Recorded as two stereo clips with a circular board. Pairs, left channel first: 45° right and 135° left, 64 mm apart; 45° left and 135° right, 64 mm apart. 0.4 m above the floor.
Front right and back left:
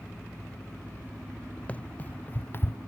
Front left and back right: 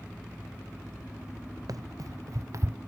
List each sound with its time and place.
1.7 s running footsteps: 110° right; by 2.8 s 90° right